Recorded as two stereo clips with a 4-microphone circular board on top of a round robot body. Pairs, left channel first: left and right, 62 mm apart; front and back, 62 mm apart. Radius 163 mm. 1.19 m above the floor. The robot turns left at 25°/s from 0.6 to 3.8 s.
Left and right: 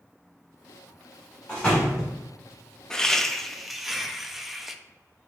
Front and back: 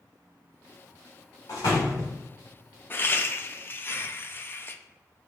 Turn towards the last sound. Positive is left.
turn(degrees=-5)